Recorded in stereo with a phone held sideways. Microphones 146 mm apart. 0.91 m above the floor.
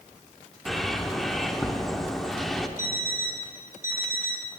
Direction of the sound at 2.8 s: 20° right (ahead or behind).